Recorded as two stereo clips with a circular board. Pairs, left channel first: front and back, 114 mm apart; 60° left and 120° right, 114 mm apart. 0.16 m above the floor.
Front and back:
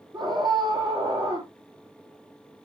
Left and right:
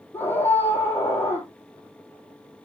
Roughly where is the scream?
Behind left.